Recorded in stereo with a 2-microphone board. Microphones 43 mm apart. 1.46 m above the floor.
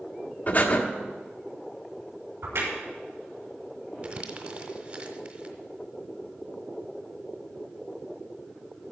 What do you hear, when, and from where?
0.5 s breathing: 40° left (ahead or behind), 1.3 m
2.4 s a crack: 80° right, 5.5 m
4.0 s crumpling: 35° right (ahead or behind), 1.6 m